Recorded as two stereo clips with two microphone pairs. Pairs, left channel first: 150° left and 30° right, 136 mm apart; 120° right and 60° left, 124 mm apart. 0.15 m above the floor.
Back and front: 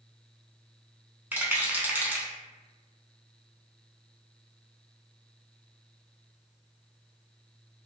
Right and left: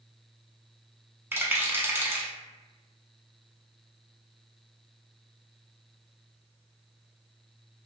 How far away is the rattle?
About 0.6 m.